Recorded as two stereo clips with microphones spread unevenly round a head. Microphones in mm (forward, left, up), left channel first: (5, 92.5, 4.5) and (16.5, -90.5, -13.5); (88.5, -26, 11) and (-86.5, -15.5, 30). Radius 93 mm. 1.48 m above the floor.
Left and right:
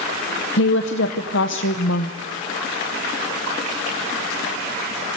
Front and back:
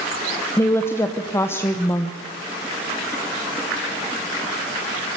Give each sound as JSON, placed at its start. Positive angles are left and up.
{"t": 0.6, "sound": "a woman speaking", "azimuth_deg": 75, "distance_m": 0.9}